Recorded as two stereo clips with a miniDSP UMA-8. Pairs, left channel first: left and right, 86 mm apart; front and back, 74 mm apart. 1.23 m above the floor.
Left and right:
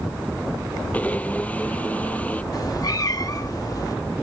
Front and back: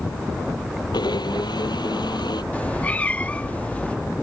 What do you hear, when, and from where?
0.9 s a blender: 20° left
2.5 s a cat meowing: 65° left